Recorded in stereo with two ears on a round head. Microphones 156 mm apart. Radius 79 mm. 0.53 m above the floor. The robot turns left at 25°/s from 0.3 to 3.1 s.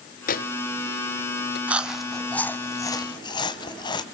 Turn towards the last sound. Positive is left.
turn(degrees=25)  # may be behind; listen again after turning